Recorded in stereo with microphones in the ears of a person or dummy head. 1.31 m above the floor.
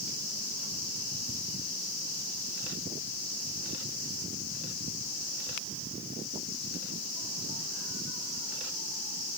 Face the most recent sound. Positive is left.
No sound to turn to.